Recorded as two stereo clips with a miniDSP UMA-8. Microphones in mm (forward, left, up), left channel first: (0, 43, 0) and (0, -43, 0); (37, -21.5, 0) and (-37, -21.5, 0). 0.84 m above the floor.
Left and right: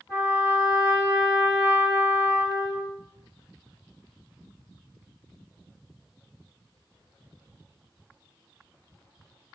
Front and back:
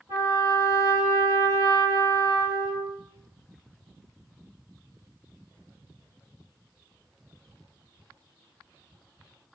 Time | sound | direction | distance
0.1 | a trumpet | 150° left | 2.5 m